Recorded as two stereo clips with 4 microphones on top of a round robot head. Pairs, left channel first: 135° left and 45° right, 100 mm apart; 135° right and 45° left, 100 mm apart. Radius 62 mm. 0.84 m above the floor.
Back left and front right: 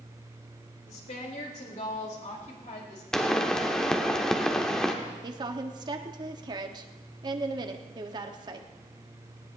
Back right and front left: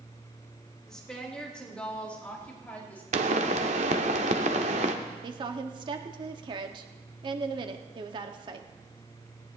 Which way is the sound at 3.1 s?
55° left.